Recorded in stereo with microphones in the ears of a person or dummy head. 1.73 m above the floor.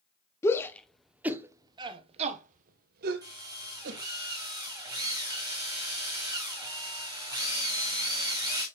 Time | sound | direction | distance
0.4 | a shout | 15° left (ahead or behind) | 1.3 m
3.2 | a drill | 20° right (ahead or behind) | 2.5 m